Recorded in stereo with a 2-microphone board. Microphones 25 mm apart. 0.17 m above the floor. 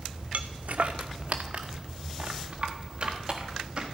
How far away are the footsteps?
About 0.6 m.